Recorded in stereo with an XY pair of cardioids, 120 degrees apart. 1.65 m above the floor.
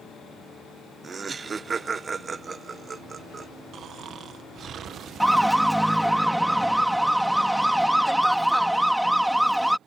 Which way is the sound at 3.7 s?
50° right.